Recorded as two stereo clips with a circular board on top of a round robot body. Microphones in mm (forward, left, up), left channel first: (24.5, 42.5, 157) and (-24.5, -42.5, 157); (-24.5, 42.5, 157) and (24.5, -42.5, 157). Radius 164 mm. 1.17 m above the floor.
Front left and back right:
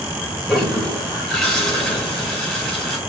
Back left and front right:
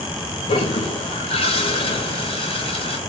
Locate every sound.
0.5 s a toilet flushing: 145° left, 1.0 m